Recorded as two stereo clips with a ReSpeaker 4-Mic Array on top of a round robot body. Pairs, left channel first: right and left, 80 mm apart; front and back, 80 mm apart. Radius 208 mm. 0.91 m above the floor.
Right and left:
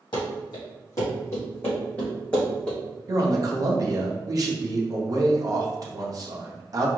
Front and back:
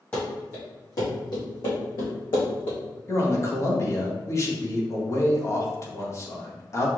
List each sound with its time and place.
0.1 s running footsteps: 70° right, 1.8 m; by 2.8 s 10° right, 3 m
3.1 s a man speaking: 50° left, 1.2 m